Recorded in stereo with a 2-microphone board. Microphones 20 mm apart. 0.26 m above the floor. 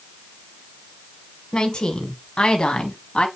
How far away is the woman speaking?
About 1.9 m.